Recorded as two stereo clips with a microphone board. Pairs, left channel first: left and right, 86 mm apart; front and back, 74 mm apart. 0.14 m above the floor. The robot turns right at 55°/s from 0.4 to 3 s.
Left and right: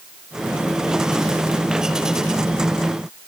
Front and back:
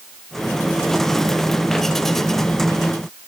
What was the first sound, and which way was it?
Only background noise.